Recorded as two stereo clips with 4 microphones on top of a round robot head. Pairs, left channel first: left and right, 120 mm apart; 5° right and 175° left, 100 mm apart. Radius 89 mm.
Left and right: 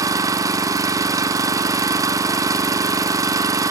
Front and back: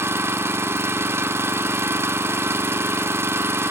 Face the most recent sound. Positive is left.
turn(degrees=-135)